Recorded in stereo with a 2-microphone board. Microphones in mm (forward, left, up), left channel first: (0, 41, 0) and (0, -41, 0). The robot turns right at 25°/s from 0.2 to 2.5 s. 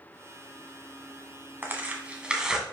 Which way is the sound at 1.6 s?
25° right (ahead or behind).